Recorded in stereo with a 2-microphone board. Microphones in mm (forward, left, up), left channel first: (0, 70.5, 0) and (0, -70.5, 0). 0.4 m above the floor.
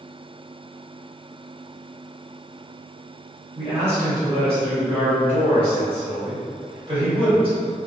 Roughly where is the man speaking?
Right.